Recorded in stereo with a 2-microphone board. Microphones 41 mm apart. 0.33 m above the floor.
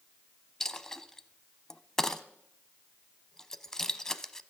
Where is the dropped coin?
10° left (ahead or behind), 0.7 m.